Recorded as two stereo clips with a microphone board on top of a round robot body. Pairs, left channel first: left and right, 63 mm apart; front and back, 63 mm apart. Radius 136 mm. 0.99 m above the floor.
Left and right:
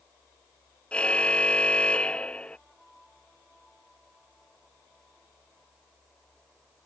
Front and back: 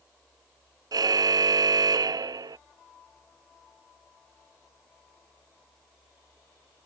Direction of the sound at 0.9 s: 165° left.